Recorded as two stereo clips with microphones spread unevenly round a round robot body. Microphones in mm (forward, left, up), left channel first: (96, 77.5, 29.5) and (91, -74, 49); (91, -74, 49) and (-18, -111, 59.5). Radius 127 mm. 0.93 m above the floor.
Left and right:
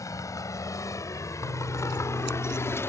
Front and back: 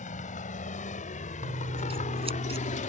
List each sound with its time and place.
0.0 s a vehicle: 20° left; by 2.9 s 15° left
1.4 s scissors: 125° right